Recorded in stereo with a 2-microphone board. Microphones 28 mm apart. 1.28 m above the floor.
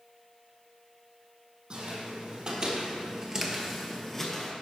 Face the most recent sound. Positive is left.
turn(degrees=10)  # may be behind; listen again after turning